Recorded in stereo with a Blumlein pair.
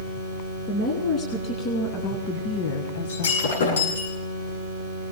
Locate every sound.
0.7 s a woman speaking: 25° left, 3 m; by 4.0 s 75° left, 1.0 m
3.1 s breaking glass: 60° left, 9.5 m